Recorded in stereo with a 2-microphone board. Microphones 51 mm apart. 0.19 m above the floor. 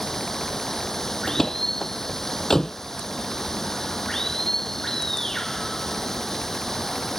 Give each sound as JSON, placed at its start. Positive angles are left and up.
{"t": 0.0, "sound": "running water", "side_deg": 5}
{"t": 1.3, "sound": "a door slam", "side_deg": 10}